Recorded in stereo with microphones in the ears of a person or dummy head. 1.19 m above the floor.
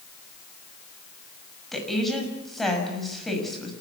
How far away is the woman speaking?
About 7 m.